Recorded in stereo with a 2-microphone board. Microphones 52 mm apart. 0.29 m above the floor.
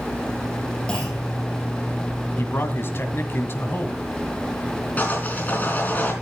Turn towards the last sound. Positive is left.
turn(degrees=35)  # may be behind; listen again after turning